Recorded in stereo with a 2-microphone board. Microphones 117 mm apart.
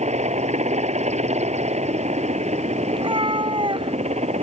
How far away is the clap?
No clap in this recording.